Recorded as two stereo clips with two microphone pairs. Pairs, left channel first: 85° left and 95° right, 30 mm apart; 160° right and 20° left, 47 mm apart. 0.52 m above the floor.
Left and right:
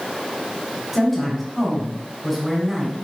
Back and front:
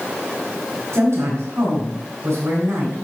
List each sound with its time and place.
0.9 s a woman speaking: 10° right, 3.5 m